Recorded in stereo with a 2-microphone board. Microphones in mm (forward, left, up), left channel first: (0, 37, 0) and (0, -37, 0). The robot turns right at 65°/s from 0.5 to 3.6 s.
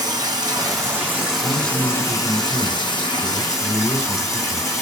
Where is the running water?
65° right, 0.9 m; by 4.8 s 140° left, 0.9 m.